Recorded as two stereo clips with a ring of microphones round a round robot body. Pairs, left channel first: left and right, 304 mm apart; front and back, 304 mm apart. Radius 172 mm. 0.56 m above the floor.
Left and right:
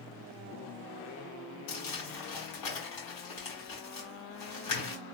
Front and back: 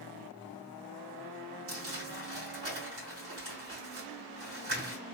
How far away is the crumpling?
About 3 m.